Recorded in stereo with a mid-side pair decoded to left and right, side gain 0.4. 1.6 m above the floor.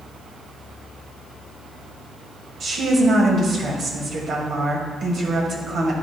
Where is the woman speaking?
65° right, 2.0 m.